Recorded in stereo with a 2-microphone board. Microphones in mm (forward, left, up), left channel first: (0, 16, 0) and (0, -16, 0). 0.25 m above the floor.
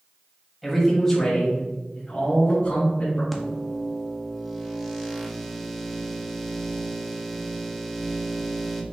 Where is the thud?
I don't hear a thud.